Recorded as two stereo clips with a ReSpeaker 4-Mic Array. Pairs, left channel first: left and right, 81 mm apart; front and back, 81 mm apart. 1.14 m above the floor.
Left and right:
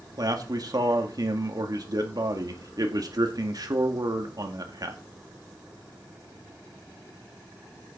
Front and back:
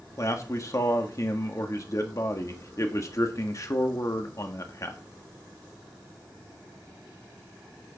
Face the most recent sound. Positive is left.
turn(degrees=-50)